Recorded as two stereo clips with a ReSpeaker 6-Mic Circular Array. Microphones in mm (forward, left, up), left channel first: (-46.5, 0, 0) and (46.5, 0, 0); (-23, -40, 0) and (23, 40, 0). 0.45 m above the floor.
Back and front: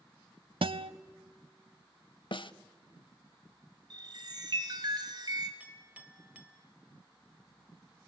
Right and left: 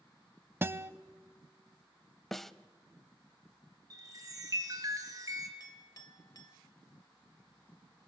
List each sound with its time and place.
0.6 s a guitar: 5° right, 0.5 m
2.3 s a snare drum: 155° left, 0.5 m
3.9 s a chime: 20° left, 2.0 m
5.6 s a clink: 75° right, 1.3 m